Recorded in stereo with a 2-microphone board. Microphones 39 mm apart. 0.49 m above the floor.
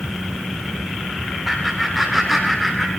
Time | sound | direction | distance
1.4 | laughter | 5° left (ahead or behind) | 3.5 m